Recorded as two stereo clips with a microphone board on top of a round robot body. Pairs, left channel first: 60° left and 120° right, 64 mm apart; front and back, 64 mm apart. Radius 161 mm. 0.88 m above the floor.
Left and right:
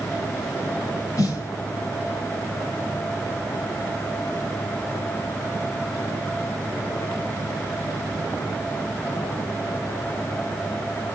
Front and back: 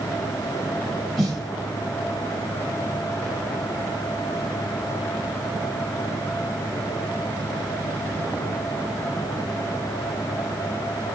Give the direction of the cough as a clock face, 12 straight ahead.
No cough in this recording.